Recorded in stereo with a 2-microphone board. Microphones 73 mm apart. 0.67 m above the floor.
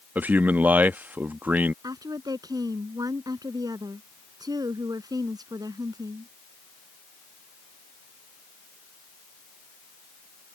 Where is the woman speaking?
60° right (ahead or behind).